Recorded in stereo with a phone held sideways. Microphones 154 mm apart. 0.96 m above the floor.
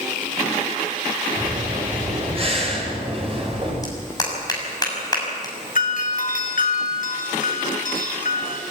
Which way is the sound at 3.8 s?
25° left (ahead or behind).